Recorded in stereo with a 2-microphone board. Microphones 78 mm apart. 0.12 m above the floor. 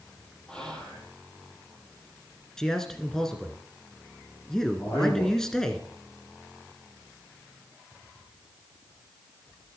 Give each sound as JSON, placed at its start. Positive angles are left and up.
{"t": 0.5, "sound": "whispering", "side_deg": 10, "distance_m": 3.0}
{"t": 2.6, "sound": "a man speaking", "side_deg": 5, "distance_m": 1.1}
{"t": 4.8, "sound": "a man speaking", "side_deg": 30, "distance_m": 5.0}